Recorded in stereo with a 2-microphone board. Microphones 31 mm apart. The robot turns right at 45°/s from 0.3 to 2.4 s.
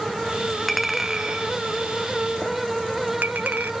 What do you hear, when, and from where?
0.7 s a clink: 5° left (ahead or behind), 0.6 m; by 3.7 s 75° right (ahead or behind), 0.6 m